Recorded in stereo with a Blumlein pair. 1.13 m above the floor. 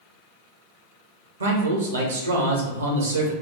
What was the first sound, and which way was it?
A man speaking, 70° right.